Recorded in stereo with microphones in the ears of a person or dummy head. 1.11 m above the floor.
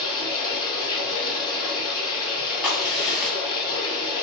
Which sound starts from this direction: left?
Running water, at 0.0 s.